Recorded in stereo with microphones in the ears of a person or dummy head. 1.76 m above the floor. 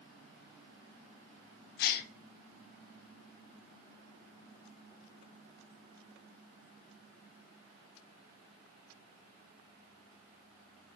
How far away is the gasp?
About 0.9 m.